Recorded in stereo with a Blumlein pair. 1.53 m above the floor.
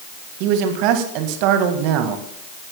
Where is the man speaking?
45° right, 2 m.